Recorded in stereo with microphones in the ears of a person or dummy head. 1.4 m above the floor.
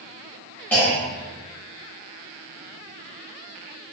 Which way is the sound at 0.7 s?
10° left (ahead or behind).